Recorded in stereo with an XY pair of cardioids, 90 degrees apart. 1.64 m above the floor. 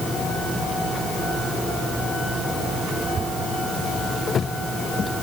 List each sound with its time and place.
Only background noise.